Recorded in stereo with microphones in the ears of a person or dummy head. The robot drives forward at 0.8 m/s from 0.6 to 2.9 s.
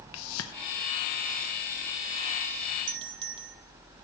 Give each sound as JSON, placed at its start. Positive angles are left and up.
{"t": 0.1, "sound": "a whoosh", "side_deg": 80, "distance_m": 0.7}
{"t": 2.9, "sound": "a doorbell", "side_deg": -30, "distance_m": 1.2}